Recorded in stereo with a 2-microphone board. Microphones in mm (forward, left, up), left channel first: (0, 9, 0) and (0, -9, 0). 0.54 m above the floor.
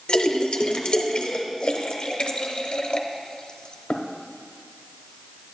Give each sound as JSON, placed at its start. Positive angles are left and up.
{"t": 0.1, "sound": "a splash", "side_deg": 65, "distance_m": 0.7}